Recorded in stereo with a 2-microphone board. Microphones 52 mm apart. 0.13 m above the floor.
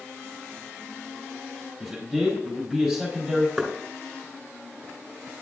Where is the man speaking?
Centre (ahead or behind), 4 m.